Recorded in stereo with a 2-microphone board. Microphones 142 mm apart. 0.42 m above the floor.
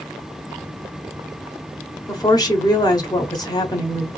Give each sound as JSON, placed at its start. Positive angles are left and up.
{"t": 2.1, "sound": "a woman speaking", "side_deg": 30, "distance_m": 1.2}